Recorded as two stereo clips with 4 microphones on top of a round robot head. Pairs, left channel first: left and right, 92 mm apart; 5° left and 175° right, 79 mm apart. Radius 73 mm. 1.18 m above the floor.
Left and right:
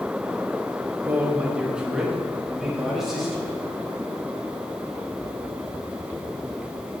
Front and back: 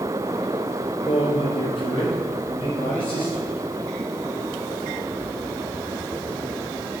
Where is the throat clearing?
I don't hear throat clearing.